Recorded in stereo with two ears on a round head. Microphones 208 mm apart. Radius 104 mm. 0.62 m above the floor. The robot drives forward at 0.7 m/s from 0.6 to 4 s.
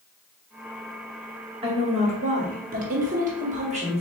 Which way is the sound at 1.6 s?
25° right (ahead or behind).